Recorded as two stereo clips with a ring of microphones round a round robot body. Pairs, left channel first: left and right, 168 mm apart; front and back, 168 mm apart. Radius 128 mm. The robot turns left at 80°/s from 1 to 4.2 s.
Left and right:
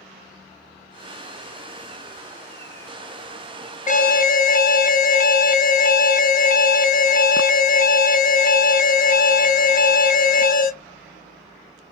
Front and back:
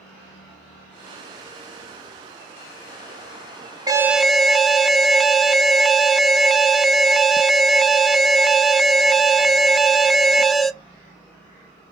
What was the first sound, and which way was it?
An alarm, 115° left.